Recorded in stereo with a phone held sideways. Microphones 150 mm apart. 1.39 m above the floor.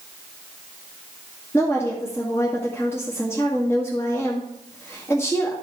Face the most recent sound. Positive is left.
turn(degrees=15)  # may be behind; listen again after turning